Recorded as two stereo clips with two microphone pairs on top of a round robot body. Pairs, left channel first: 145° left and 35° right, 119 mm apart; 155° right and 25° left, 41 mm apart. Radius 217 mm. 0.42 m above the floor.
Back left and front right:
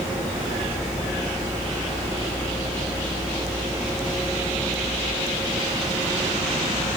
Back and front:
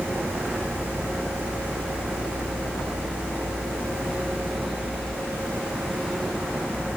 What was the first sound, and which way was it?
Only background noise.